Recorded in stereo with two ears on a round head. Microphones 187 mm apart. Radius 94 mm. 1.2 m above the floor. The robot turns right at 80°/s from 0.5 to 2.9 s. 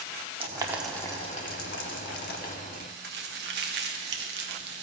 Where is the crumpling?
40° right (ahead or behind), 1.3 m; by 4.8 s 55° right (ahead or behind), 1.3 m.